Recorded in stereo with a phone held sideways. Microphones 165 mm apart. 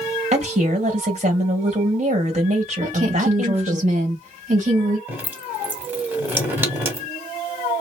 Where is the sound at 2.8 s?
45° right (ahead or behind), 1.6 m.